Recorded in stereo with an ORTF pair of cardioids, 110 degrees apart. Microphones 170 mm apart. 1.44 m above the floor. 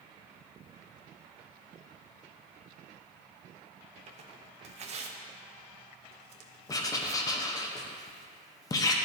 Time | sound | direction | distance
4.1 | tearing paper | 40° right | 0.7 m
6.7 | writing | 20° left | 0.7 m